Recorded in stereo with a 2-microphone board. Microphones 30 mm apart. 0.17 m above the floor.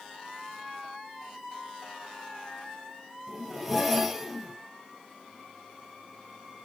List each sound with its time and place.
3.3 s a zipper: 5° right (ahead or behind), 0.8 m